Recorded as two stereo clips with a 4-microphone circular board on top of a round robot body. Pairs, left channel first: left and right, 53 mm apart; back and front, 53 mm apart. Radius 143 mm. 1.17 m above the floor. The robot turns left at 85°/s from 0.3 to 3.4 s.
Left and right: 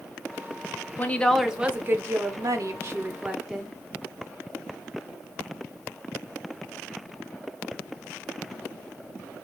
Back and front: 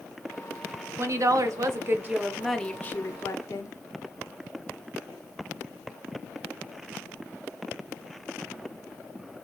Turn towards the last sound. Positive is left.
turn(degrees=-170)